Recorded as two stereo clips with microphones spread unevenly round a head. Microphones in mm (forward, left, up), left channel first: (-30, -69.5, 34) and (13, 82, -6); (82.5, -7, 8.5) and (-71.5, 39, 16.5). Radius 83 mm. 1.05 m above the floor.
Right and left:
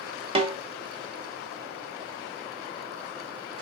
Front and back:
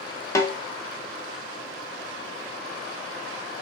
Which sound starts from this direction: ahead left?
A snare drum, at 0.3 s.